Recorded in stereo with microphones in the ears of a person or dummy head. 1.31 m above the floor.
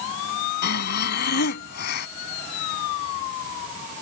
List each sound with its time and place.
0.6 s breathing: 55° left (ahead or behind)